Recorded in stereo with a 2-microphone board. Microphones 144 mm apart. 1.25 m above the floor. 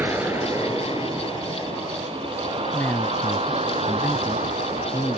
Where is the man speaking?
15° left (ahead or behind).